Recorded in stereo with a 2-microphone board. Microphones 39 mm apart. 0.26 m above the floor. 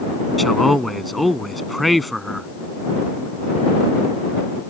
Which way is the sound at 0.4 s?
Centre (ahead or behind).